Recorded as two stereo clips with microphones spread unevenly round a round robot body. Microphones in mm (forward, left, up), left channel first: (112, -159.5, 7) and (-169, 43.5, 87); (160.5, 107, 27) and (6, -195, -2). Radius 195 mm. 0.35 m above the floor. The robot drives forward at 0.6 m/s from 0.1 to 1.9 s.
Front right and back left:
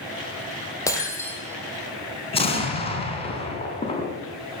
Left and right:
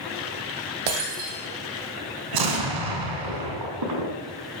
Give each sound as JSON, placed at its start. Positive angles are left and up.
{"t": 0.9, "sound": "breaking glass", "azimuth_deg": -120, "distance_m": 4.0}
{"t": 2.3, "sound": "an explosion", "azimuth_deg": -105, "distance_m": 2.5}